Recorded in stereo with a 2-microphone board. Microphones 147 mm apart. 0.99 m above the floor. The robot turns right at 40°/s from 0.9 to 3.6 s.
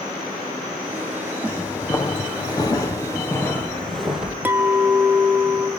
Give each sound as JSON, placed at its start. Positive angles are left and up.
{"t": 1.4, "sound": "footsteps", "side_deg": 15, "distance_m": 3.0}
{"t": 4.5, "sound": "a clink", "side_deg": -10, "distance_m": 0.8}